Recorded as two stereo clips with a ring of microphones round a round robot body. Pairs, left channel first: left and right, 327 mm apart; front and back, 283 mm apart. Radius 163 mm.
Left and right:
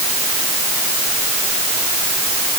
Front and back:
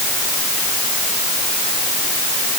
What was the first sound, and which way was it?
Only background noise.